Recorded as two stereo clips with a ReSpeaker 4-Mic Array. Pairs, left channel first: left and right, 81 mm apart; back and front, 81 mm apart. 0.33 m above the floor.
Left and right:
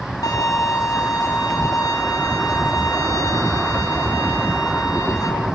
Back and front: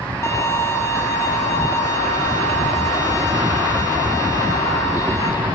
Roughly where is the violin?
Behind left.